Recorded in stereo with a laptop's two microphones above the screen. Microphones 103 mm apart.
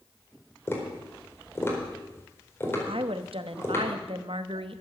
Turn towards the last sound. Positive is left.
turn(degrees=-70)  # may be behind; listen again after turning